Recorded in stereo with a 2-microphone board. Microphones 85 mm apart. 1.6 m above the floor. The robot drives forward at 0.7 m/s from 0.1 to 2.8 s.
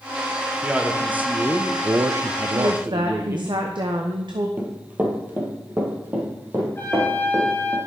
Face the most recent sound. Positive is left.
turn(degrees=25)  # may be behind; listen again after turning